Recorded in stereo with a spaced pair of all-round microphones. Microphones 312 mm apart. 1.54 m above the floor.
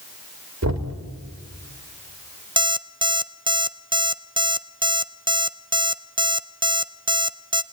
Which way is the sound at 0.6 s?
55° right (ahead or behind).